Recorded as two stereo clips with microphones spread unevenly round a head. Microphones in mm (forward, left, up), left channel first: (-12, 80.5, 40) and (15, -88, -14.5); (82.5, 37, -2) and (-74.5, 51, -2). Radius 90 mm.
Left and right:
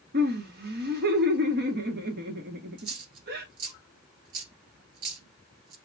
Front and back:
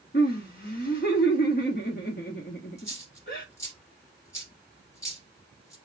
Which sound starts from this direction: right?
A dropped coin, at 2.8 s.